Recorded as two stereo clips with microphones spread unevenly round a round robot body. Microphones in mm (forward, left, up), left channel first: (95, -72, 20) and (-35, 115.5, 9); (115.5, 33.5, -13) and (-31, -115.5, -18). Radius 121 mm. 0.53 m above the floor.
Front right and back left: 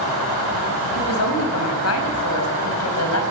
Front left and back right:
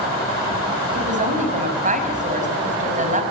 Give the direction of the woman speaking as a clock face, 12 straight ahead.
3 o'clock.